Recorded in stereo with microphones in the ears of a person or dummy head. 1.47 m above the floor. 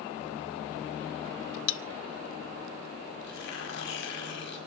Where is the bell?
70° left (ahead or behind), 1.0 m.